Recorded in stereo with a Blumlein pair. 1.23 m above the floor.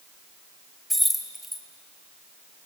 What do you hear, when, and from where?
0.9 s keys jangling: straight ahead, 1.3 m